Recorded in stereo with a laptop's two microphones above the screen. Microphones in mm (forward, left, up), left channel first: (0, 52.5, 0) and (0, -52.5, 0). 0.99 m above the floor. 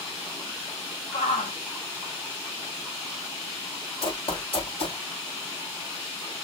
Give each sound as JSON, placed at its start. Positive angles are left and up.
{"t": 1.1, "sound": "a shout", "side_deg": 85, "distance_m": 2.0}
{"t": 4.0, "sound": "running footsteps", "side_deg": 55, "distance_m": 2.5}